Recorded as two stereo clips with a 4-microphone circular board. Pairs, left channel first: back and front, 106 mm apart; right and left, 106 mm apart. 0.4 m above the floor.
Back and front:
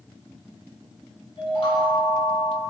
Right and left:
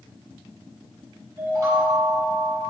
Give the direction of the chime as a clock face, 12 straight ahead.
7 o'clock.